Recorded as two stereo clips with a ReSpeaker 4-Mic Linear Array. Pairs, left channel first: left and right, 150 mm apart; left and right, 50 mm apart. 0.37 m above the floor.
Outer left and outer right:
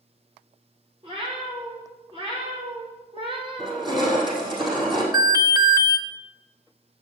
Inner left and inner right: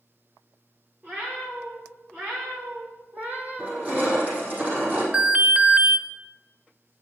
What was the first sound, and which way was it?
A cat meowing, 35° right (ahead or behind).